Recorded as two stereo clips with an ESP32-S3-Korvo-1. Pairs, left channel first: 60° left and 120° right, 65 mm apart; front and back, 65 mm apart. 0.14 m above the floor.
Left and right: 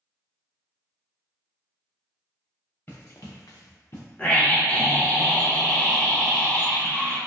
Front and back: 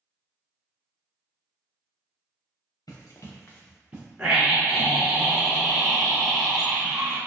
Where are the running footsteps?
10° left, 1.2 m; by 4.1 s 115° left, 1.2 m.